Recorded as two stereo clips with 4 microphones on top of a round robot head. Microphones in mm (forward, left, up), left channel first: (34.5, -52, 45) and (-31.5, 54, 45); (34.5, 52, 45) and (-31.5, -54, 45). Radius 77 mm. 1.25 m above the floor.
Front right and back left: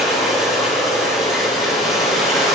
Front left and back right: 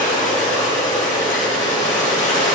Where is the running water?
35° left, 3 m.